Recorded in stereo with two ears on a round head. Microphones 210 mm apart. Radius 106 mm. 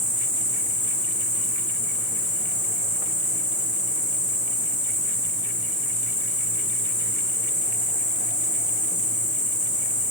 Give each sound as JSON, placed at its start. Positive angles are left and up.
{"t": 0.0, "sound": "an insect", "side_deg": -10, "distance_m": 1.6}